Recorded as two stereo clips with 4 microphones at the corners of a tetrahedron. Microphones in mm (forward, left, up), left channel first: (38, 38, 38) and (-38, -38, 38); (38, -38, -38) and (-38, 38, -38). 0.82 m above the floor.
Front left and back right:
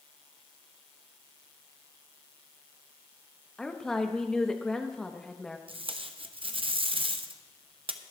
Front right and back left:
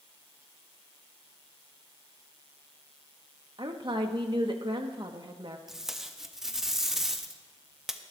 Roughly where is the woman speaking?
Behind left.